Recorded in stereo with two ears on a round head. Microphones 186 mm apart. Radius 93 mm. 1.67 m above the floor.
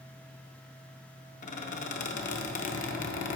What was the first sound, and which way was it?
A squeak, 40° left (ahead or behind).